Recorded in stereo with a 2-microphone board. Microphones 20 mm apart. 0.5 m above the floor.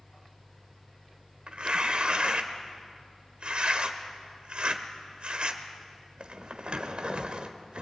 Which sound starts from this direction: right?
Tearing paper, at 1.5 s.